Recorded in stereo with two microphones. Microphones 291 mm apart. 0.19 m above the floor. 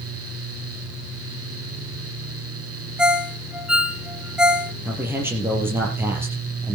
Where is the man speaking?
5° right (ahead or behind), 5 m.